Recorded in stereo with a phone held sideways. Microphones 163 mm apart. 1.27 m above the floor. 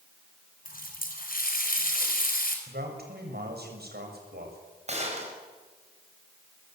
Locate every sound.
0.7 s a running tap: 65° left (ahead or behind), 4.5 m
2.7 s a man speaking: 80° right, 7 m
4.9 s a gunshot: 45° right (ahead or behind), 5.5 m